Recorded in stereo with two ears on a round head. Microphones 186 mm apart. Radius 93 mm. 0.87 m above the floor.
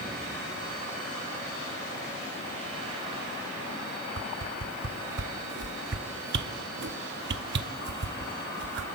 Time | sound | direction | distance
4.2 | a whoosh | 55° right (ahead or behind) | 0.7 m